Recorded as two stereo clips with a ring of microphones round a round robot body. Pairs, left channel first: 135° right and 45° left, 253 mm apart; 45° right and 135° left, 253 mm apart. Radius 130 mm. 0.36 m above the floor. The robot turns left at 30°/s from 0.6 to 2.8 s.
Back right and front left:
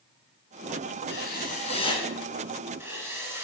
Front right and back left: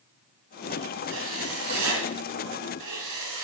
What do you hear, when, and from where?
1.1 s writing: straight behind, 3 m; by 3.5 s 125° left, 3 m